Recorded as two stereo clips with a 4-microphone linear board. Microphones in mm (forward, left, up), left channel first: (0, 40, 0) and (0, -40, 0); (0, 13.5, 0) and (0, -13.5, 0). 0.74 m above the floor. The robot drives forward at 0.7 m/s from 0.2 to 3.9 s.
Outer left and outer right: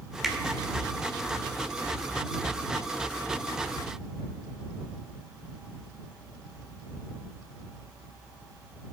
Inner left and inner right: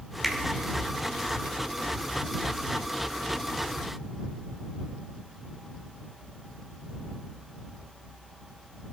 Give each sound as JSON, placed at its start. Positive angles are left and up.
{"t": 0.2, "sound": "a finger snap", "side_deg": -5, "distance_m": 1.6}